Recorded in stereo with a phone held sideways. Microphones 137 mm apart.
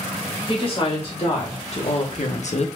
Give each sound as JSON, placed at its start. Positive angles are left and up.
{"t": 0.5, "sound": "a woman speaking", "side_deg": 40, "distance_m": 3.0}